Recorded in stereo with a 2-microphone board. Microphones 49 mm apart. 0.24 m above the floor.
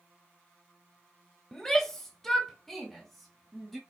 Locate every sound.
1.5 s a shout: 10° left (ahead or behind), 1.0 m; by 3.8 s centre (ahead or behind), 1.4 m